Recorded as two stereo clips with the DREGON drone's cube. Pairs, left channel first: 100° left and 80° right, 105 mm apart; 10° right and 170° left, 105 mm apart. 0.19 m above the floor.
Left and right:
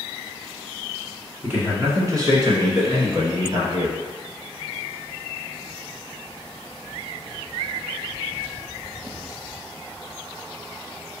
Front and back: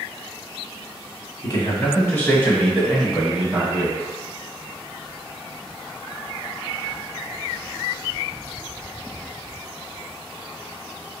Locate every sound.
1.4 s a man speaking: 20° right, 1.7 m; by 4.0 s 115° right, 2.5 m